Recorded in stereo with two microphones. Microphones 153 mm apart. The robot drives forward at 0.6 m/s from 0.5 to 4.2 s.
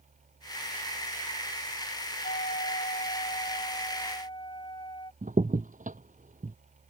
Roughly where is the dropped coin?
No dropped coin in this recording.